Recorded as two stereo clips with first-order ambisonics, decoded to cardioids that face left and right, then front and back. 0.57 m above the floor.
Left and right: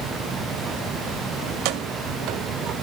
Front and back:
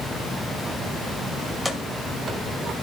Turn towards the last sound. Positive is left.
turn(degrees=-135)